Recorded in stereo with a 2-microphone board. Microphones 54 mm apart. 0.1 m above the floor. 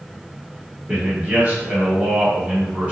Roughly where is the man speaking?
Right.